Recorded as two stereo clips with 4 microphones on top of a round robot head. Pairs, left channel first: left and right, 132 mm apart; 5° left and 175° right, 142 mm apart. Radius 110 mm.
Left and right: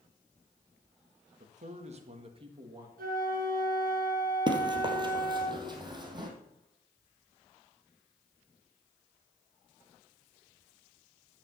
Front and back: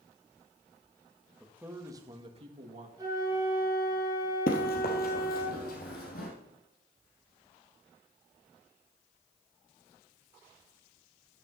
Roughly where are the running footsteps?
Ahead right.